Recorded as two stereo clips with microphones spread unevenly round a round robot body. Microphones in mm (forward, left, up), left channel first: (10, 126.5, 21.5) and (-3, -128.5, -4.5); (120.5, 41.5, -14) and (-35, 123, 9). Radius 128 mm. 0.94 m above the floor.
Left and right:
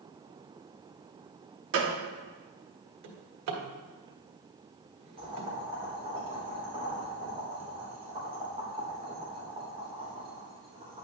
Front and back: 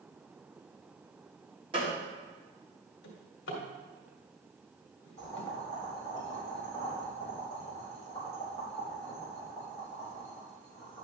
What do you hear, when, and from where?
1.7 s a gunshot: 135° right, 1.3 m
3.0 s a drawer: 65° right, 1.8 m
5.2 s boiling: 160° right, 3.5 m